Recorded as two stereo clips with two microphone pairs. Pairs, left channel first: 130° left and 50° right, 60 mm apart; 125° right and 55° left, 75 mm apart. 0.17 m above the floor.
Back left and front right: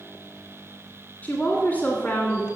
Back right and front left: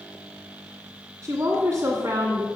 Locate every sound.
1.2 s a woman speaking: 85° left, 1.6 m